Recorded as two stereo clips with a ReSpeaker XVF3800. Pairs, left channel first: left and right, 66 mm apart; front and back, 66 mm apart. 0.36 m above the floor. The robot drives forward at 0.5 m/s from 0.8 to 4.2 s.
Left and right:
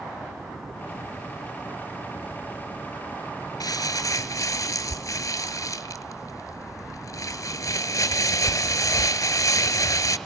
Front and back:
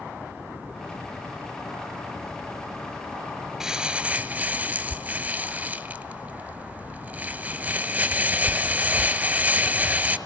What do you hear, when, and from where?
3.6 s crumpling: 100° left, 0.9 m; by 10.2 s 120° left, 1.0 m